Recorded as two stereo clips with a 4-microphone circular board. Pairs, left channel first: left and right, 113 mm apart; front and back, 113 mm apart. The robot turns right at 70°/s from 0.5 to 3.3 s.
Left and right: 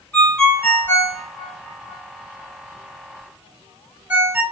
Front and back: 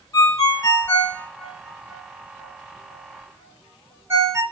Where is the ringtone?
20° left, 1.0 m; by 4.4 s 145° right, 1.0 m.